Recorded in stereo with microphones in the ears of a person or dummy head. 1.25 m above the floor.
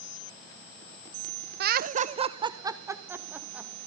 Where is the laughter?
55° right (ahead or behind), 0.6 m; by 3.7 s 10° right (ahead or behind), 1.7 m.